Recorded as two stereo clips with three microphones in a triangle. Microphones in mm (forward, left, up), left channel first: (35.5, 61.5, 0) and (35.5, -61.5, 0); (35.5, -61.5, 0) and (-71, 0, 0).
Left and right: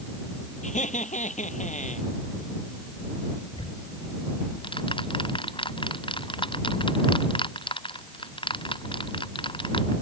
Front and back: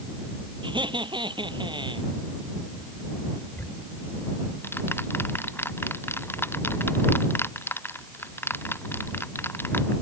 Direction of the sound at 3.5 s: 45° left.